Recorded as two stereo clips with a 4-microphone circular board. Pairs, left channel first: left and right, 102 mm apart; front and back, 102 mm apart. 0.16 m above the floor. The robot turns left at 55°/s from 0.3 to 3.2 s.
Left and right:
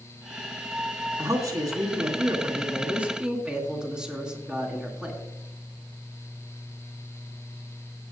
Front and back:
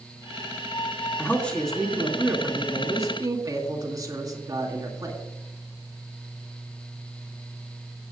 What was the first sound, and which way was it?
A man speaking, 55° right.